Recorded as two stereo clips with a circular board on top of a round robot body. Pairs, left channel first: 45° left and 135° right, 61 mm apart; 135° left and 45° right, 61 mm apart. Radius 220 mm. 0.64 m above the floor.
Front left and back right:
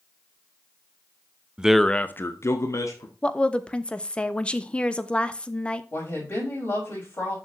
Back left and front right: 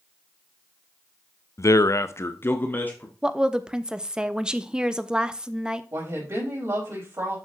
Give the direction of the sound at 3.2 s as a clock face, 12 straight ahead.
12 o'clock.